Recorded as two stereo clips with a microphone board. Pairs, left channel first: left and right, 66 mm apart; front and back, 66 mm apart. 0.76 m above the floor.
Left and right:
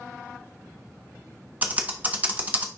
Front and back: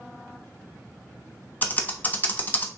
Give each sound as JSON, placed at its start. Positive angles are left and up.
{"t": 1.6, "sound": "typing on a keyboard", "azimuth_deg": -40, "distance_m": 1.2}